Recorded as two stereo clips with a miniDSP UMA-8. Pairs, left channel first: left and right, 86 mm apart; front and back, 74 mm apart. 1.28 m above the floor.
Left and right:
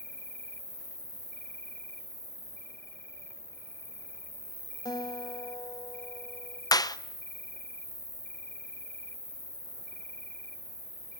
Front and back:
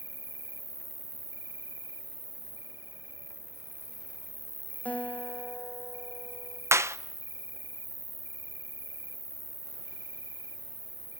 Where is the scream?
I don't hear a scream.